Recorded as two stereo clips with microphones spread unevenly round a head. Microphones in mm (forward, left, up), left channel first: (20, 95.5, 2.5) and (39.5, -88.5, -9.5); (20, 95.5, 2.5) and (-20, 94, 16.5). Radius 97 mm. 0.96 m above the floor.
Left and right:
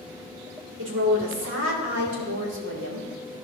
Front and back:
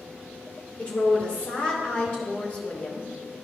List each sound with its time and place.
0.8 s a woman speaking: 65° right, 2 m